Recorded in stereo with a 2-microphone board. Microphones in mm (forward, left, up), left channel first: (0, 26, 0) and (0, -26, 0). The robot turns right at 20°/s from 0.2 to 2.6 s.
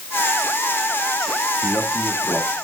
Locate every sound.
1.6 s a man speaking: 10° right (ahead or behind), 3.5 m; by 2.5 s 25° right (ahead or behind), 3.5 m